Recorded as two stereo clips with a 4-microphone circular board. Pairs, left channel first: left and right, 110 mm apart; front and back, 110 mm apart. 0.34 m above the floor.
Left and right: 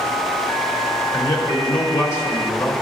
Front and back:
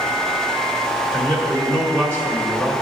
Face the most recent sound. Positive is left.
turn(degrees=60)